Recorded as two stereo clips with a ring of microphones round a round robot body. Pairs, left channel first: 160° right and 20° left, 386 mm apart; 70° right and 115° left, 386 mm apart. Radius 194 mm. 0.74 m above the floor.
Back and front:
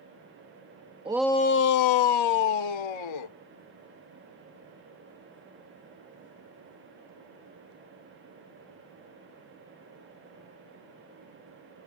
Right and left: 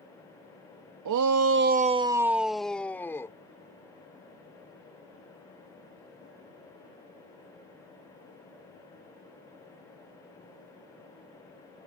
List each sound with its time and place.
1.1 s a shout: 95° left; by 3.4 s 150° right